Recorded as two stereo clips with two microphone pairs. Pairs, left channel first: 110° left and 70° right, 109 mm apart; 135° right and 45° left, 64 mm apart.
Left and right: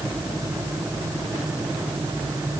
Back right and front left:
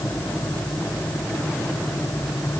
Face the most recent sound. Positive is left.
No sound to turn to.